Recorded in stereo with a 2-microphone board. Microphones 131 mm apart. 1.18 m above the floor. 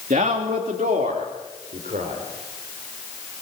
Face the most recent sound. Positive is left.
turn(degrees=-75)  # may be behind; listen again after turning